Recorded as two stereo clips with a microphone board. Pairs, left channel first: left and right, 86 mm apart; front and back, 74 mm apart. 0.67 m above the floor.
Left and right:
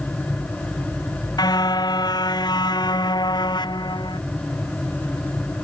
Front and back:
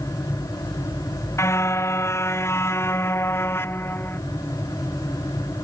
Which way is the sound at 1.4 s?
50° left.